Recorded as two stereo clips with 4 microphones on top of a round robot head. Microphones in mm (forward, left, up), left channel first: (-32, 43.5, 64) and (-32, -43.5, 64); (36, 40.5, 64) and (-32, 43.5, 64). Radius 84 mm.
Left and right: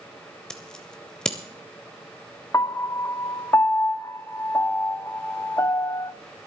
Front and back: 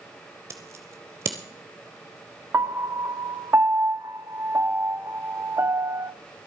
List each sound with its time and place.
0.5 s scissors: 165° left, 0.6 m
2.5 s a piano: 140° left, 0.7 m